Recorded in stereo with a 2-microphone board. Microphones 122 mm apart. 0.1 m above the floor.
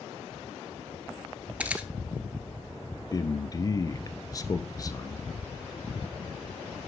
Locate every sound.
1.6 s a camera shutter: 10° right (ahead or behind), 1.3 m
3.1 s a man speaking: 30° left (ahead or behind), 1.2 m